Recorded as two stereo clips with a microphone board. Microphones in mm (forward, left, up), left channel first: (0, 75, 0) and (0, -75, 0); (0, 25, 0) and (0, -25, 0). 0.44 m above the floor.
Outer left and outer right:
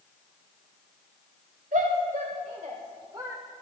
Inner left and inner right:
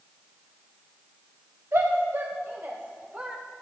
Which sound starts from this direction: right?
A shout, at 1.7 s.